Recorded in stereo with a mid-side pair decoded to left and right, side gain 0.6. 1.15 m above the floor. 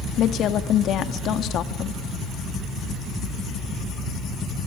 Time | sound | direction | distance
0.2 | a woman speaking | 55° left | 1.8 m